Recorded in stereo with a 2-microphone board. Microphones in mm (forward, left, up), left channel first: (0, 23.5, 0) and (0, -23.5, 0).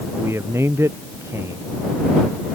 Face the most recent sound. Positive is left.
turn(degrees=-65)  # may be behind; listen again after turning